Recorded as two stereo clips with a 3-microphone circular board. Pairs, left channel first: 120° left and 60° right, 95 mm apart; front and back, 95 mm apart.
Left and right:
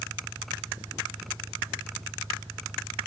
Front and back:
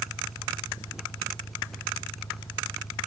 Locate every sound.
0.0 s an engine running: 25° right